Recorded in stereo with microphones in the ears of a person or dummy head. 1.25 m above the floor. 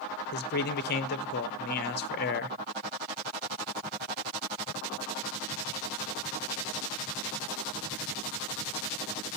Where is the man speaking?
50° left (ahead or behind), 0.5 m.